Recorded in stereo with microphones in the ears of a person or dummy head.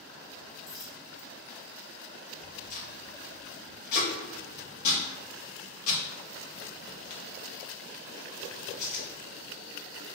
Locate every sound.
0.7 s a dropped coin: 20° left (ahead or behind), 1.6 m
2.7 s tape being pulled: 50° left (ahead or behind), 1.4 m